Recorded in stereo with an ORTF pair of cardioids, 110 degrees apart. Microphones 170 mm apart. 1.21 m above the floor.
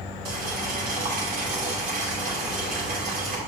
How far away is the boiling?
About 2.5 m.